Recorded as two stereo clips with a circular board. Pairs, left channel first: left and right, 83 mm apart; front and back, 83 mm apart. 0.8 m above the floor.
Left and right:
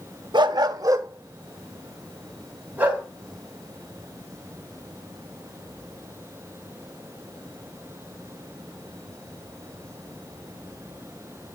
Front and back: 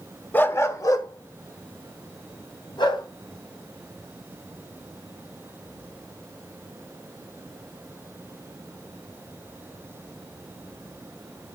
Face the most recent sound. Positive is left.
turn(degrees=-20)